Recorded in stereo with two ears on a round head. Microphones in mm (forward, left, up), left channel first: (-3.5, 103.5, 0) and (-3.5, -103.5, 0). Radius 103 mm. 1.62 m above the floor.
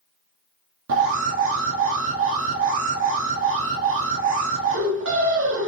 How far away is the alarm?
About 2.5 m.